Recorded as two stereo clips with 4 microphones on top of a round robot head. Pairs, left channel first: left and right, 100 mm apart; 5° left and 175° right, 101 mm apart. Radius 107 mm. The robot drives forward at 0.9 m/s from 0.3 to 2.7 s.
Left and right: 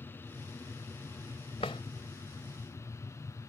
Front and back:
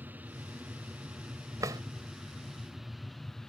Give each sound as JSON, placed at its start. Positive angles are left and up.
{"t": 0.0, "sound": "an aircraft", "azimuth_deg": 135}
{"t": 1.6, "sound": "a drawer", "azimuth_deg": 140}